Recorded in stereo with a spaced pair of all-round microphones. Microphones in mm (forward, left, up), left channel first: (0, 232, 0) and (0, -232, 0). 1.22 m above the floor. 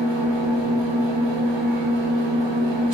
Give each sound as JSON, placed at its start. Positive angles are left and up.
{"t": 0.0, "sound": "an engine running", "side_deg": -65, "distance_m": 0.7}